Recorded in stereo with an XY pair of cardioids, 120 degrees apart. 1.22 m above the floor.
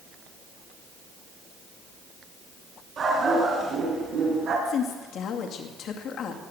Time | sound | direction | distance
3.0 | a dog barking | 50° right | 5 m
4.7 | a woman speaking | 60° left | 2.5 m